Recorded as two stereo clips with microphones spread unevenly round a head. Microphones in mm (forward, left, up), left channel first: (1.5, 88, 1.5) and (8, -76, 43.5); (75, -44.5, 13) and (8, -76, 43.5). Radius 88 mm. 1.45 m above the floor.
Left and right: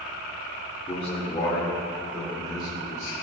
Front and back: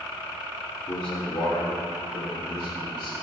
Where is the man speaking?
35° left, 1.9 m; by 3.2 s 20° left, 3.5 m.